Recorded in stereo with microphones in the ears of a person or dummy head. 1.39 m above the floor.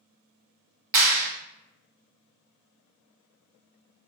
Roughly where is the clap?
Right.